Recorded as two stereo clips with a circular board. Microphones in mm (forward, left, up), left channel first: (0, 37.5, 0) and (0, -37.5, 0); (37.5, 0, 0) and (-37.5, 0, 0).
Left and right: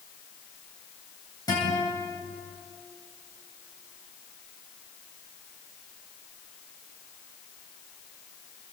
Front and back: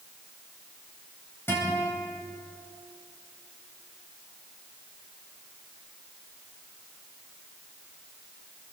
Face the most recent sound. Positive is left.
turn(degrees=60)